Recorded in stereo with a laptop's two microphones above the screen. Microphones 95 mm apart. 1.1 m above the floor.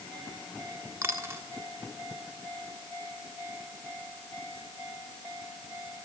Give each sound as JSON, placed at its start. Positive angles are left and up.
{"t": 1.0, "sound": "a dropped coin", "side_deg": -30, "distance_m": 1.3}